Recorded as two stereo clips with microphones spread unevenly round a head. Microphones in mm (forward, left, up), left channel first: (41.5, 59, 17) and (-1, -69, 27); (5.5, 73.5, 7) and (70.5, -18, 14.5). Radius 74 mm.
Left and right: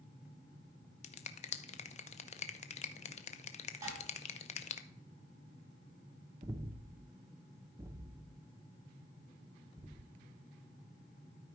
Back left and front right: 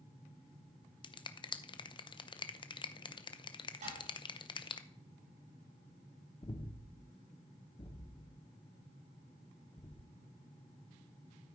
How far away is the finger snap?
About 0.6 m.